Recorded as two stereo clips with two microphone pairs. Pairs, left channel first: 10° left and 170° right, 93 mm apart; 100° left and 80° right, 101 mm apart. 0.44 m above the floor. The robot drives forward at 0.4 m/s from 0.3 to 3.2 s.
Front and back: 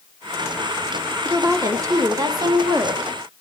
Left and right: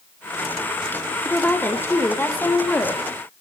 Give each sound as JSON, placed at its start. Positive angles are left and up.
{"t": 1.2, "sound": "a woman speaking", "azimuth_deg": 155, "distance_m": 1.5}